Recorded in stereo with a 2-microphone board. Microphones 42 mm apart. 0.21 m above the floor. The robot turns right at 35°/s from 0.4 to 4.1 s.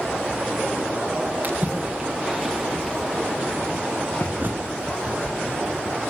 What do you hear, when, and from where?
1.4 s a splash: 40° right (ahead or behind), 4.5 m; by 4.4 s 50° left (ahead or behind), 4.5 m
4.4 s a bird: 45° right (ahead or behind), 3 m